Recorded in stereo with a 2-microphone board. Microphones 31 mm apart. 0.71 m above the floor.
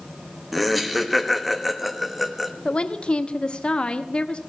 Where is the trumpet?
I don't hear a trumpet.